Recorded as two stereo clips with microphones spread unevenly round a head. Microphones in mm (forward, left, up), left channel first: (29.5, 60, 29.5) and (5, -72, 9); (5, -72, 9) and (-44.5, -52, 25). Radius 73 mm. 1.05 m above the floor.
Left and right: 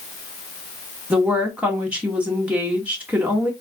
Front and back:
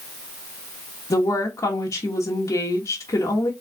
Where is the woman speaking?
25° right, 1.3 m.